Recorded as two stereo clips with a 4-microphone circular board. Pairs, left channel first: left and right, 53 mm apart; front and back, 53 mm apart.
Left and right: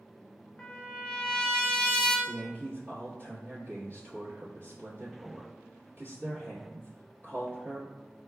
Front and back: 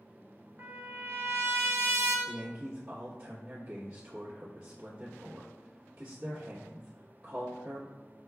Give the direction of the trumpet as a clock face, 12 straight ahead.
7 o'clock.